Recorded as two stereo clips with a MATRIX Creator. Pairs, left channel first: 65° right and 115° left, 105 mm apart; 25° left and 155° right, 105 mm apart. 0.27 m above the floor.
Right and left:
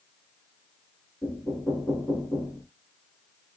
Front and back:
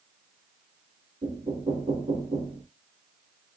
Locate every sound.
1.2 s knocking: 145° right, 3 m